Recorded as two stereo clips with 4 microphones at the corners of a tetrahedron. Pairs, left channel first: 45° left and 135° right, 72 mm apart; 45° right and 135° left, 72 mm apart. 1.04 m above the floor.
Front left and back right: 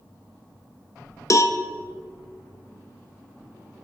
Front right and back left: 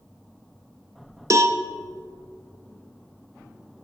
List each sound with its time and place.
1.3 s a cowbell: 90° left, 0.7 m